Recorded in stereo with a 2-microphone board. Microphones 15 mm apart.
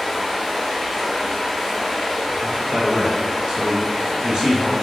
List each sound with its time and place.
0.0 s running water: 30° left (ahead or behind), 1.5 m
2.4 s a man speaking: 70° right (ahead or behind), 1.0 m